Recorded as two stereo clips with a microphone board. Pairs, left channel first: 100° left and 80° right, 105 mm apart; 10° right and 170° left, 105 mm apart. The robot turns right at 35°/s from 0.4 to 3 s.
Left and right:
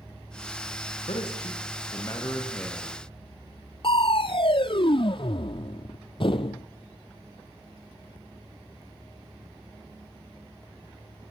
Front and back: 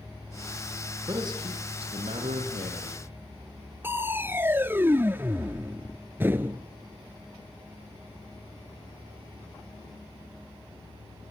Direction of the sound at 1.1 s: 120° left.